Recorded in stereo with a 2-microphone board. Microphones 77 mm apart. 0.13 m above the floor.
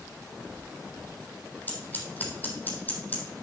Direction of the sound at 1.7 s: 25° left (ahead or behind).